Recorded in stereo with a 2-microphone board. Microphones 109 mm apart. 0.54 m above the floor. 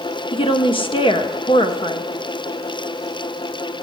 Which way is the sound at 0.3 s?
50° left (ahead or behind).